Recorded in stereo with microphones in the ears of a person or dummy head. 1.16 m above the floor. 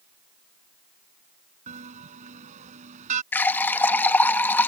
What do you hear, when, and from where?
1.7 s a bell: 50° right (ahead or behind)
3.3 s a running tap: 5° left (ahead or behind)